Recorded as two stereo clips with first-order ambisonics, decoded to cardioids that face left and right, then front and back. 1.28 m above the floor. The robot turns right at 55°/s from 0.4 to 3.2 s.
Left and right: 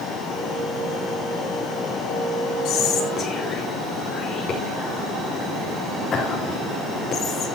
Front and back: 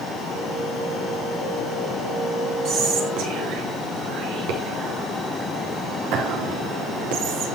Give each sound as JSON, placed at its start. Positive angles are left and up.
{"t": 2.6, "sound": "whispering", "azimuth_deg": 125, "distance_m": 4.5}